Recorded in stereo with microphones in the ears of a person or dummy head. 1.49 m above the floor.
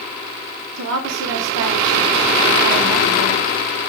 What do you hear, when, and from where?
0.8 s a woman speaking: 65° right (ahead or behind), 0.9 m